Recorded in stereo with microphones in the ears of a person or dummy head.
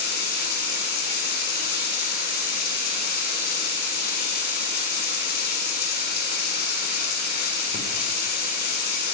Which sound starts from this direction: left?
Running water, at 0.0 s.